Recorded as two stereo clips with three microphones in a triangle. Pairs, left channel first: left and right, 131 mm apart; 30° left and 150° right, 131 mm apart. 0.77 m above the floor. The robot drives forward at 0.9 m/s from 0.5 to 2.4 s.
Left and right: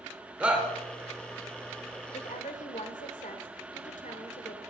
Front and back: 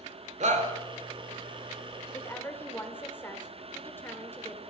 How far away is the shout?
About 3 m.